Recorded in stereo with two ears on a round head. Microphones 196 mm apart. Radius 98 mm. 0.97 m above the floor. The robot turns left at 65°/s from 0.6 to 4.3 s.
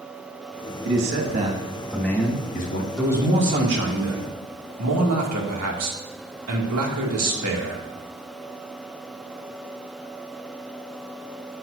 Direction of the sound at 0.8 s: 110° right.